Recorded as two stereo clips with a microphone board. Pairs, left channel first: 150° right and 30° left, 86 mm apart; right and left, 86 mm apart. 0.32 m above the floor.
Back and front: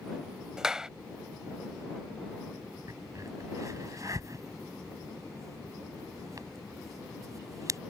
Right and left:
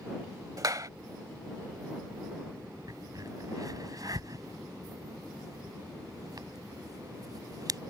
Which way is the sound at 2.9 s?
65° left.